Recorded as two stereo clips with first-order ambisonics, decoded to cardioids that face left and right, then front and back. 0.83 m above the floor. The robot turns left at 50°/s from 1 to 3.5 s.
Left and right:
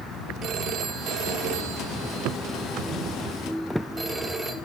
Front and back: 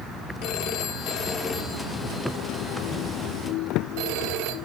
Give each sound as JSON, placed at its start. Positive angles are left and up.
{"t": 0.4, "sound": "a phone ringing", "azimuth_deg": -40, "distance_m": 1.4}